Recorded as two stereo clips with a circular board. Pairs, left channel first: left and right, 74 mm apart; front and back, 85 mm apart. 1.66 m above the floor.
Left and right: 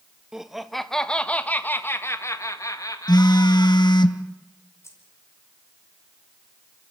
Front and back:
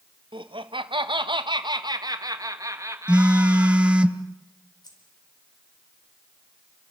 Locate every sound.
0.3 s laughter: 175° right, 1.9 m; by 4.1 s 115° left, 3 m
3.1 s a phone buzzing: 105° left, 1.1 m
4.8 s keys jangling: 40° left, 5 m